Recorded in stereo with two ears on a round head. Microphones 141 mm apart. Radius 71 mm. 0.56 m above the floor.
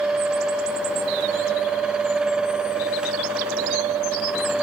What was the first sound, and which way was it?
Only background noise.